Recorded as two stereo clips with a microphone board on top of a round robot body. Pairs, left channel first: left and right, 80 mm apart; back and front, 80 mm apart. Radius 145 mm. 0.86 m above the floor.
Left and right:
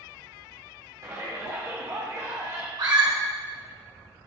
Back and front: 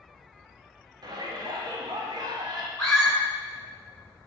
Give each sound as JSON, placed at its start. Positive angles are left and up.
{"t": 1.0, "sound": "a shout", "azimuth_deg": -35, "distance_m": 1.7}
{"t": 2.8, "sound": "a scream", "azimuth_deg": -100, "distance_m": 2.5}